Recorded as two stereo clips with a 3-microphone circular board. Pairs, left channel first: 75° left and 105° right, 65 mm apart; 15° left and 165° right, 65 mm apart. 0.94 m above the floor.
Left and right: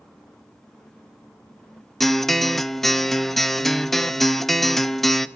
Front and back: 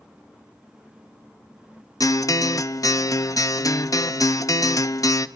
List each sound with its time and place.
2.0 s a guitar: 10° right, 0.6 m